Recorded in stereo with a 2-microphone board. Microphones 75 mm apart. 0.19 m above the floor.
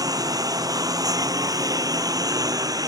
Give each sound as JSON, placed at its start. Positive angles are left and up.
{"t": 0.0, "sound": "a lawn mower", "side_deg": -60}